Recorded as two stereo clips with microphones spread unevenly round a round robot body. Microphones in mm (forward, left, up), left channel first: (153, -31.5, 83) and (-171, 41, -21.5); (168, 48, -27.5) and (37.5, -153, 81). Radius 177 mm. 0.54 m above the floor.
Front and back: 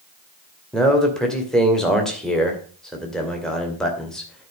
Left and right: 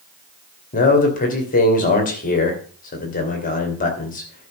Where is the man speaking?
85° left, 2 m.